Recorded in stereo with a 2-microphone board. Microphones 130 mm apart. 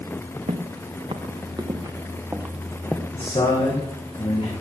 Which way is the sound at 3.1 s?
45° left (ahead or behind).